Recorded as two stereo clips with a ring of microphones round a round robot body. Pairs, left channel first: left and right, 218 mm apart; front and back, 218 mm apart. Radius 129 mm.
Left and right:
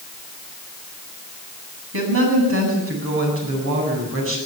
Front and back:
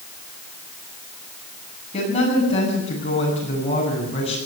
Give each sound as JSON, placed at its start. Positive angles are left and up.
{"t": 1.9, "sound": "a woman speaking", "azimuth_deg": -65, "distance_m": 8.5}